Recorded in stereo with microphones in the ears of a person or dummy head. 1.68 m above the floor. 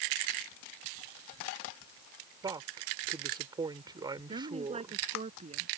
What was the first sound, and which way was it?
A woman speaking, 25° right (ahead or behind).